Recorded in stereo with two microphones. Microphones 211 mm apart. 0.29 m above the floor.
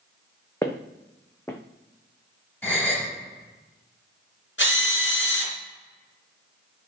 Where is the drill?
65° left (ahead or behind), 3.5 m.